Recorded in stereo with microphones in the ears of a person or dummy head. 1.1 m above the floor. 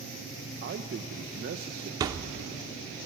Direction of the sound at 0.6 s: 50° right (ahead or behind).